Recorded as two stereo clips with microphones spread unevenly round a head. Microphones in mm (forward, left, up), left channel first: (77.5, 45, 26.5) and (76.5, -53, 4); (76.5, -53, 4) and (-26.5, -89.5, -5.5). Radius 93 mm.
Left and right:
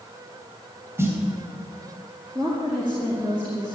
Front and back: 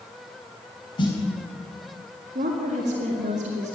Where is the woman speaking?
170° right, 2.0 m.